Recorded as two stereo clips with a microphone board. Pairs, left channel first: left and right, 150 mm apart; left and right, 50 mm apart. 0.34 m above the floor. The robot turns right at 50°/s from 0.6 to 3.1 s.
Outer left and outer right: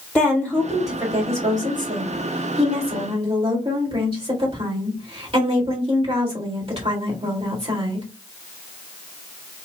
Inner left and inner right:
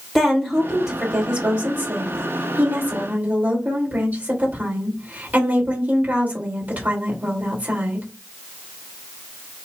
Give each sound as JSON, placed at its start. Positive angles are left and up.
{"t": 0.1, "sound": "a woman speaking", "azimuth_deg": 170, "distance_m": 1.9}